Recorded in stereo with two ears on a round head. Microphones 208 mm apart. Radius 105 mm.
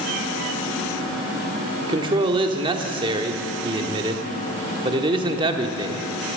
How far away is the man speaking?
About 1.1 m.